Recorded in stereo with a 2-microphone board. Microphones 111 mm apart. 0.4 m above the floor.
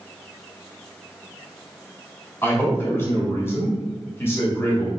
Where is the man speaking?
20° left (ahead or behind), 1.2 m.